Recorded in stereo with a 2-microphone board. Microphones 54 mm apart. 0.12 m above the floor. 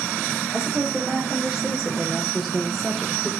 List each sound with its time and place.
0.5 s a woman speaking: 10° right (ahead or behind), 4.5 m; by 3.3 s 5° left (ahead or behind), 3.5 m